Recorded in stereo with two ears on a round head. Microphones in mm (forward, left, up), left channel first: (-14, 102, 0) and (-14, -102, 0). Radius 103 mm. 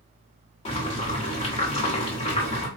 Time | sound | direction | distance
0.7 | boiling | 25° left (ahead or behind) | 1.3 m